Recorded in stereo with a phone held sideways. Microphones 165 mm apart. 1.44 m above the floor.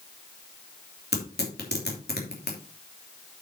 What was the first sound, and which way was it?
Tearing paper, 80° left.